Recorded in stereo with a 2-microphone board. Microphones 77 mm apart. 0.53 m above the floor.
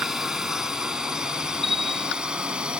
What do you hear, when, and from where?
0.0 s a drone: 5° right (ahead or behind); by 2.8 s 15° right (ahead or behind)
1.6 s a bell: centre (ahead or behind)